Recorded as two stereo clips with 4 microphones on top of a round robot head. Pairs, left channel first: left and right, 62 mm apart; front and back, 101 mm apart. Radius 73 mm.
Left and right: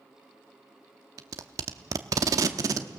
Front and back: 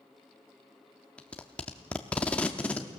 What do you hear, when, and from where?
1.2 s tape being pulled: 80° right, 0.7 m